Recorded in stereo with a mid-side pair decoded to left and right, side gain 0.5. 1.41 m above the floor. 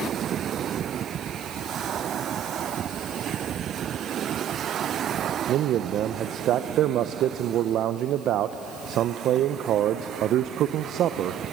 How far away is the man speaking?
About 0.8 m.